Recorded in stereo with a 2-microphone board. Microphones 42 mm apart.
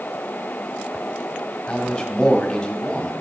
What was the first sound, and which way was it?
A man speaking, 15° left (ahead or behind).